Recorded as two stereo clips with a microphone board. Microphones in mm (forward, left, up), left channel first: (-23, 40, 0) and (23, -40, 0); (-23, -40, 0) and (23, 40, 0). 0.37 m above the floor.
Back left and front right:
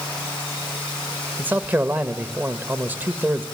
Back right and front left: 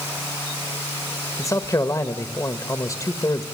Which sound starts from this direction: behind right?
A man speaking, at 1.4 s.